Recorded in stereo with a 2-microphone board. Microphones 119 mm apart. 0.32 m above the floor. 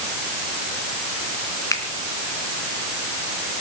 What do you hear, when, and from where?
1.7 s a finger snap: 25° left (ahead or behind), 3 m